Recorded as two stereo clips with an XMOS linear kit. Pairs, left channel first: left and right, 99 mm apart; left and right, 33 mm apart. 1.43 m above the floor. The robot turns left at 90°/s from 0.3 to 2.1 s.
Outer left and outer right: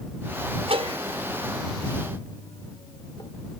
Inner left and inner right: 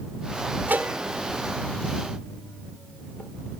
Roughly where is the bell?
Right.